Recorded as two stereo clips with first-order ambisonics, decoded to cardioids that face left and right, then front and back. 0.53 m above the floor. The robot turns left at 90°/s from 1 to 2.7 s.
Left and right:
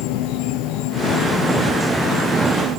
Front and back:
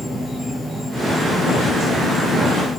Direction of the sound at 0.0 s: 90° left.